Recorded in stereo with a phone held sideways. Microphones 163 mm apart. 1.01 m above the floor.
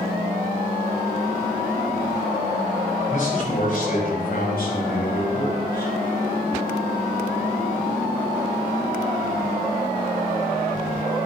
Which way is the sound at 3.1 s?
50° left (ahead or behind).